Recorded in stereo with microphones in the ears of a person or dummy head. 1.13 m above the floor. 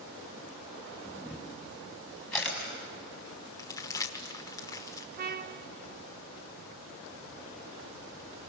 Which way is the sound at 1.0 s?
5° left (ahead or behind).